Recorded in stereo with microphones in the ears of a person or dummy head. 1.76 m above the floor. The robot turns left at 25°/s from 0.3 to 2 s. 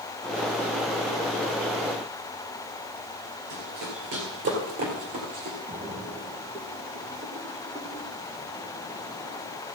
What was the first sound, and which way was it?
Running footsteps, 40° right (ahead or behind).